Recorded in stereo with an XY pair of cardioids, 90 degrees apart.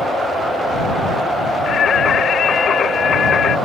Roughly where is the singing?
Ahead left.